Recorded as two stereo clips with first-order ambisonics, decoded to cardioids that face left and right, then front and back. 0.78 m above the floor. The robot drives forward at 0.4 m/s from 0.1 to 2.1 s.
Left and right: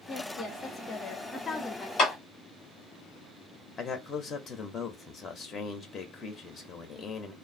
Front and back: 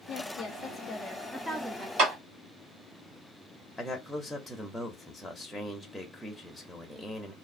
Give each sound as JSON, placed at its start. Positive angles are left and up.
{"t": 0.1, "sound": "a woman speaking", "azimuth_deg": 20, "distance_m": 0.7}
{"t": 2.0, "sound": "a clap", "azimuth_deg": 150, "distance_m": 1.7}
{"t": 3.8, "sound": "a man speaking", "azimuth_deg": 95, "distance_m": 0.6}